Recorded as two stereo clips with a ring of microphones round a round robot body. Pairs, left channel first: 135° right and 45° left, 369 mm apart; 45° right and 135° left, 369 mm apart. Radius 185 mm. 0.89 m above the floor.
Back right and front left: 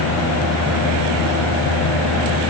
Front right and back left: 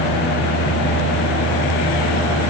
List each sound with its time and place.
Only background noise.